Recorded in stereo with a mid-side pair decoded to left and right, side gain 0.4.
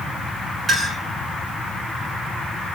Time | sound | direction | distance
0.7 | a clink | 45° right | 9 m